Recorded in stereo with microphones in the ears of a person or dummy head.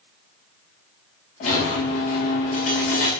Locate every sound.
1.4 s a squeak: 30° left (ahead or behind), 0.8 m